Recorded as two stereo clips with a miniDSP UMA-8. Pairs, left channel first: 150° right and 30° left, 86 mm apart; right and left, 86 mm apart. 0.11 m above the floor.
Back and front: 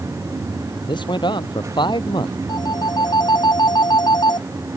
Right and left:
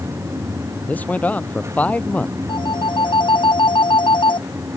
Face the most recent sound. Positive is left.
turn(degrees=-115)